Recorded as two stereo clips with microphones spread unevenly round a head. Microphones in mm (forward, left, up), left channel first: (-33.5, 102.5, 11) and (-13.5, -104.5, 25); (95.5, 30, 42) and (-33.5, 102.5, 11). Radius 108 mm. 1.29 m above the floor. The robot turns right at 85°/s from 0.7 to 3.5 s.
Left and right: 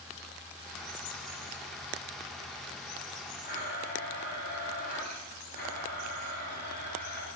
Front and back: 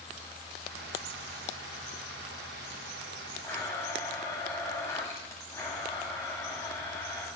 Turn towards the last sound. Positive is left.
turn(degrees=40)